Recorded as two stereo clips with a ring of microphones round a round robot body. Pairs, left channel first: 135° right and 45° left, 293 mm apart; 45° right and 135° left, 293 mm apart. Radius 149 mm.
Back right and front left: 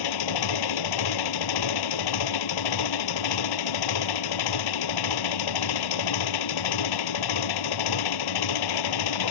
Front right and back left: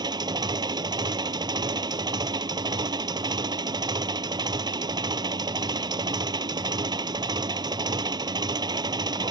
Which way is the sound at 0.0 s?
145° right.